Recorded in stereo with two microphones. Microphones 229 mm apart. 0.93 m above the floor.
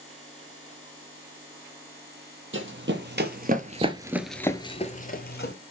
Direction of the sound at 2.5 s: 60° right (ahead or behind).